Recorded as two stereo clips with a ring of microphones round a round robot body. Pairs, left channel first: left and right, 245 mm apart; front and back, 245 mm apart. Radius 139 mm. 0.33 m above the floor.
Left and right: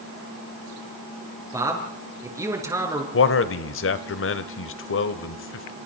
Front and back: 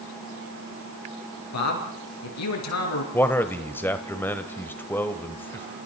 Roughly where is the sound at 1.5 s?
Ahead.